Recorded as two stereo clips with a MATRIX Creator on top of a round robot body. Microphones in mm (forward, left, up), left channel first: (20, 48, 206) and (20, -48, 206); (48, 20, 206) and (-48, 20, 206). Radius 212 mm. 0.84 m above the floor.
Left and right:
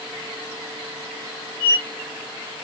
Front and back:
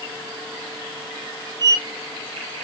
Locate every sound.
1.6 s a squeak: 50° left, 1.2 m